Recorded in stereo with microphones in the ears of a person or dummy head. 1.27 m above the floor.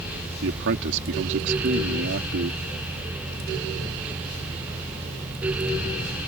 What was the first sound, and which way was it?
A man speaking, 65° right (ahead or behind).